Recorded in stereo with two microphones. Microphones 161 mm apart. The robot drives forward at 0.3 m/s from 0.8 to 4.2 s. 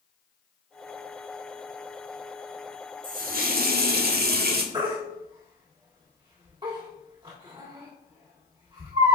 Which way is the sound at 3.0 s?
60° right (ahead or behind).